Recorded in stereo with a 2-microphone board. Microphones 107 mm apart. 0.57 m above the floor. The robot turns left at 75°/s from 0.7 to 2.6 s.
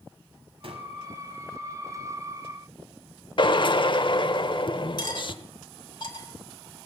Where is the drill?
50° left (ahead or behind), 0.7 m.